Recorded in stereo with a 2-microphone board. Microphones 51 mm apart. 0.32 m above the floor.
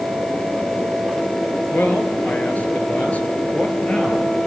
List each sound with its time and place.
1.7 s a man speaking: 35° left (ahead or behind), 5.5 m; by 4.3 s 25° left (ahead or behind), 6.5 m